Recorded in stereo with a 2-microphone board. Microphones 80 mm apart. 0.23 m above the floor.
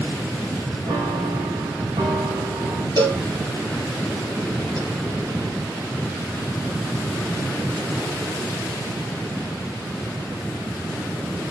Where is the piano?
80° right, 5 m.